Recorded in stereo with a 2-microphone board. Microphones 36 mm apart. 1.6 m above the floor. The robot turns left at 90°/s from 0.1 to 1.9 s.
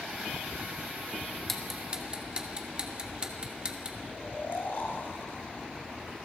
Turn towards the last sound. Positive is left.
turn(degrees=70)  # may be behind; listen again after turning